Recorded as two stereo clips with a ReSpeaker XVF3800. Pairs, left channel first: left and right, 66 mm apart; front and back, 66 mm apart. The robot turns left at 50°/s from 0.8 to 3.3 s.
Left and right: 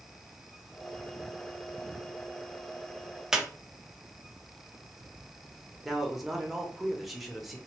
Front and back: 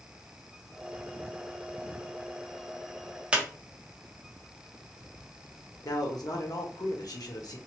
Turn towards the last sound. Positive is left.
turn(degrees=0)